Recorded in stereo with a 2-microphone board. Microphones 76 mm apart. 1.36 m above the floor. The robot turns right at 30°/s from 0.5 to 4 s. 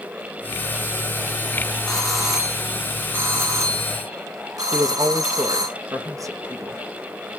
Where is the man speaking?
50° right (ahead or behind), 1.5 m.